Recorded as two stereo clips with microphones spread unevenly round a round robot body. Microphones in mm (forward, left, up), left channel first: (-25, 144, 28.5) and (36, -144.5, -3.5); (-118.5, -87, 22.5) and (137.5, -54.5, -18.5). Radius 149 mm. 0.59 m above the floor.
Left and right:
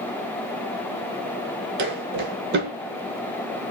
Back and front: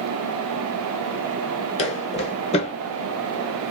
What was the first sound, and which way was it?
Footsteps, 125° right.